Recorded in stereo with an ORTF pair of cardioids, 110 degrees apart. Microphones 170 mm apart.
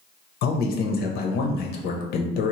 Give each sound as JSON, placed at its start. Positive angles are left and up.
{"t": 0.4, "sound": "a man speaking", "azimuth_deg": 65, "distance_m": 0.7}